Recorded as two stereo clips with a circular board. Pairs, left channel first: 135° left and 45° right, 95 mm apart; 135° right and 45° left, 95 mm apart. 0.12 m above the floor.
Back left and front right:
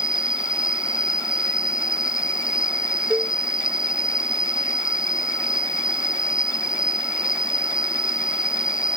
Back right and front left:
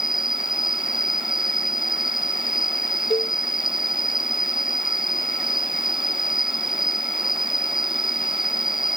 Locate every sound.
0.0 s an insect: 125° left
3.1 s a cowbell: 120° right